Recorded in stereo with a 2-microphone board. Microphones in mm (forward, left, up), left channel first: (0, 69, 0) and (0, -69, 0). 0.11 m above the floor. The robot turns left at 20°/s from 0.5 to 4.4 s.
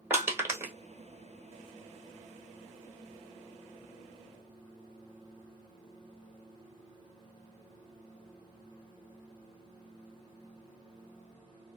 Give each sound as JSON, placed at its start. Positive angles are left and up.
{"t": 0.1, "sound": "crushing", "side_deg": -20, "distance_m": 1.1}